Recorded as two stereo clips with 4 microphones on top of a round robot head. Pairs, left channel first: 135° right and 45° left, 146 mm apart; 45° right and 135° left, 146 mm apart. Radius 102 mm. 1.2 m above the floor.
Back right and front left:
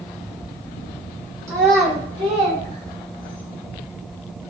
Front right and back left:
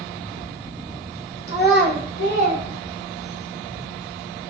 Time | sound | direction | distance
1.5 | a child speaking | 25° right | 2.5 m